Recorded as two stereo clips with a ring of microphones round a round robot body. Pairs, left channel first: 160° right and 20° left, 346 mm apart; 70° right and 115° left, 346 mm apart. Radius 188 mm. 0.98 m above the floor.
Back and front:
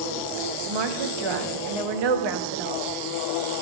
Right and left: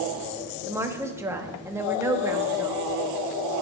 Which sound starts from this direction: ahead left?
A woman speaking, at 0.7 s.